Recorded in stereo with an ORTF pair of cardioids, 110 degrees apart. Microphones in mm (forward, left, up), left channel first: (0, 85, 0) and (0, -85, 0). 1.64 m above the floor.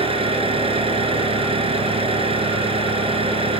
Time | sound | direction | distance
0.0 | an engine running | 35° right | ?